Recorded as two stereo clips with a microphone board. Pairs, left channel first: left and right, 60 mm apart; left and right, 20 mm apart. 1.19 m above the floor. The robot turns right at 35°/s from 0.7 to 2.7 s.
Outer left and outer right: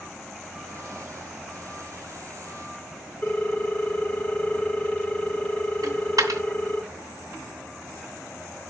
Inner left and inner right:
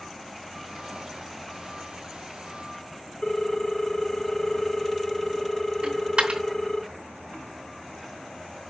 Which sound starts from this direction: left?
A ringtone, at 3.2 s.